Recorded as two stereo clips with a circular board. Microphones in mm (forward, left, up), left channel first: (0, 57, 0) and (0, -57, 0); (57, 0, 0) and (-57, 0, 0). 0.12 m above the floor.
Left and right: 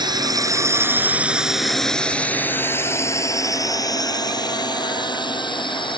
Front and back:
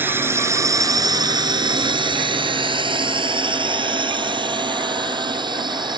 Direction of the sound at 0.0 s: 115° right.